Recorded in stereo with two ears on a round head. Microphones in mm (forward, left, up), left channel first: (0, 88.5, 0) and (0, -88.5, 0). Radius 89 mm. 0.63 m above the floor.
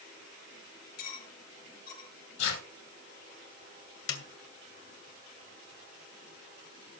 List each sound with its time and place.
1.0 s cutlery clinking: 50° left (ahead or behind), 6.5 m
2.4 s tearing paper: 65° left (ahead or behind), 4 m
4.1 s a snare drum: 75° left (ahead or behind), 2 m